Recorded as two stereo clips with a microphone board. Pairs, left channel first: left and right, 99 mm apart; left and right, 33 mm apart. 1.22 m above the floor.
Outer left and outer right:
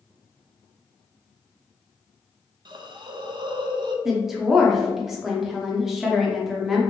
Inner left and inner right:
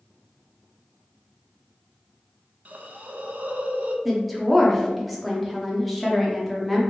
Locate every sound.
2.6 s a hiss: 50° right (ahead or behind), 0.5 m
4.0 s a woman speaking: 5° right (ahead or behind), 0.8 m